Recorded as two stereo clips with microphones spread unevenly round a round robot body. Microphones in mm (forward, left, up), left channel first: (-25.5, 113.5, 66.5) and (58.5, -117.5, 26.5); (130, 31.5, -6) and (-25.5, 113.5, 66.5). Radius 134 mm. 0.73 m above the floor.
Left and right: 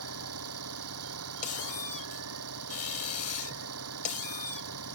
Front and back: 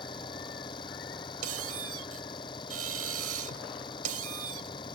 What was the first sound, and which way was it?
An engine running, 100° right.